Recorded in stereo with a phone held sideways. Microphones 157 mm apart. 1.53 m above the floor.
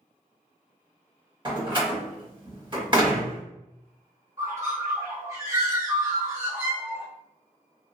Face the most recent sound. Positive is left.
turn(degrees=-20)  # may be behind; listen again after turning